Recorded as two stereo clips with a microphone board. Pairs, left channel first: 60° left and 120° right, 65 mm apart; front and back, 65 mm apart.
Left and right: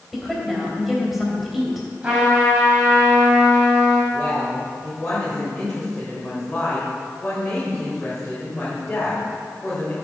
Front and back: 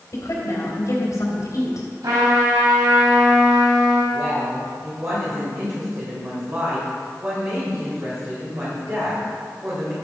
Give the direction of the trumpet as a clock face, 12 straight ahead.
6 o'clock.